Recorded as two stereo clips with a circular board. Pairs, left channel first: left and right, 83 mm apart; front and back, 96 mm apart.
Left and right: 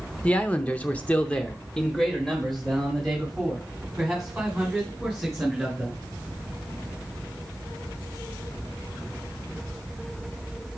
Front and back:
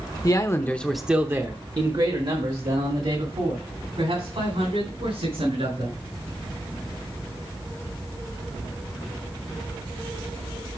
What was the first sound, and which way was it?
A man speaking, 25° left.